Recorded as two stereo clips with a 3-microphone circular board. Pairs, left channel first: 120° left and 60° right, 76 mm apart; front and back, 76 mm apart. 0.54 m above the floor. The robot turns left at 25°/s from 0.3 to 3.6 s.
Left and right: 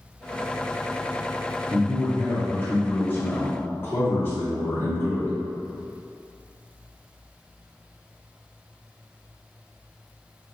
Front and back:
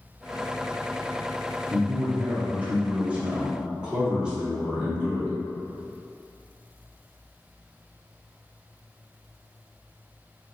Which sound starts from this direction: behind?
A man speaking, at 1.7 s.